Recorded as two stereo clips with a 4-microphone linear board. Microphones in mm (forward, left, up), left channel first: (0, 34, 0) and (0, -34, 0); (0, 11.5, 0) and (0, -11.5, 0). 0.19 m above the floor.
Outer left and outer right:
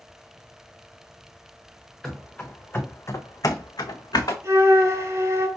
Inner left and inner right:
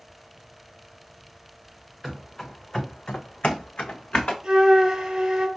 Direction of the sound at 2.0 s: 15° left (ahead or behind).